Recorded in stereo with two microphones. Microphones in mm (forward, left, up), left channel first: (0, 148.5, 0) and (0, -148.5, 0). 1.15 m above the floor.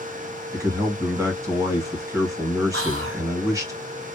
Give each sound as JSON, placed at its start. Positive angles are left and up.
{"t": 0.5, "sound": "a man speaking", "side_deg": -10, "distance_m": 1.2}
{"t": 2.7, "sound": "whispering", "side_deg": -45, "distance_m": 0.7}